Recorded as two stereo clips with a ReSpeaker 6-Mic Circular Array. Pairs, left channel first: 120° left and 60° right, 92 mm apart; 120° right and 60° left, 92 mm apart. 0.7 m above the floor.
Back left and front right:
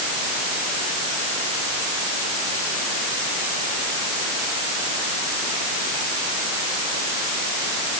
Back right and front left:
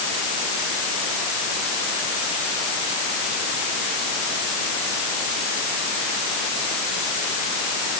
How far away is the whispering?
I don't hear whispering.